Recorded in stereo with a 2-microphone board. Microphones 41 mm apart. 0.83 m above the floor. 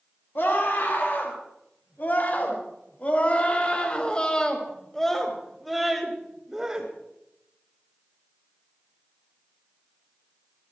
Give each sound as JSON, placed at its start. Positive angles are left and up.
{"t": 0.3, "sound": "a scream", "side_deg": 60, "distance_m": 5.5}